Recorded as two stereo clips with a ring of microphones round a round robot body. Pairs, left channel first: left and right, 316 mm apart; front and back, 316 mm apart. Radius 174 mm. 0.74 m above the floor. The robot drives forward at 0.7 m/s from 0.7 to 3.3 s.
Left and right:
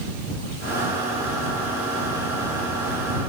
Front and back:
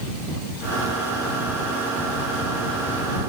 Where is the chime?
No chime in this recording.